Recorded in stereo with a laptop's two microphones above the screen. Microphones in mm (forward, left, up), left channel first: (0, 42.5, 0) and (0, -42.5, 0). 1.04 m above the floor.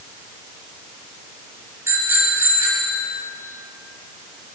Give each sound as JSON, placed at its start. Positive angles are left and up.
{"t": 1.9, "sound": "a bicycle bell", "side_deg": -30, "distance_m": 5.0}